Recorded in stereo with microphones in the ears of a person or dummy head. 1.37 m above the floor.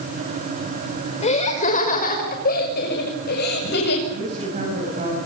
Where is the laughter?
35° left (ahead or behind), 5.5 m; by 4.0 s 55° left (ahead or behind), 8.5 m.